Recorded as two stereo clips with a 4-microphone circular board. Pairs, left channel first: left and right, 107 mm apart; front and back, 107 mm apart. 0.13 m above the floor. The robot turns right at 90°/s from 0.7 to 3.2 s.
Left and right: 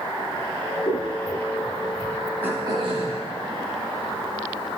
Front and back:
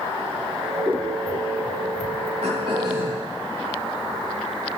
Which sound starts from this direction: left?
Scissors, at 0.9 s.